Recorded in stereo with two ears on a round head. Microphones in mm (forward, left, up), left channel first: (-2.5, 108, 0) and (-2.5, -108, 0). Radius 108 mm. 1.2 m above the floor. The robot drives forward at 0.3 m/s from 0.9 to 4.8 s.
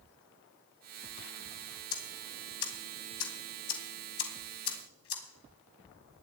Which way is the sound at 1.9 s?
65° left (ahead or behind).